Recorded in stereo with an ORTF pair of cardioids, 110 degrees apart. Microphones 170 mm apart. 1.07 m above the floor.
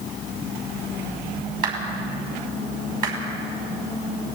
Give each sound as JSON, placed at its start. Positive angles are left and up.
{"t": 1.6, "sound": "a clap", "azimuth_deg": -55, "distance_m": 6.5}